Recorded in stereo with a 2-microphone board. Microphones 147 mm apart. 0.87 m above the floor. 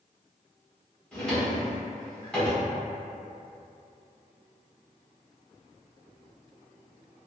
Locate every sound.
1.1 s a drawer: 5° left (ahead or behind), 0.9 m